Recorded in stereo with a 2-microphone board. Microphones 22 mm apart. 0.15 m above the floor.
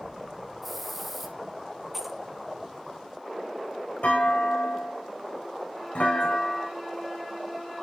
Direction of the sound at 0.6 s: 5° left (ahead or behind).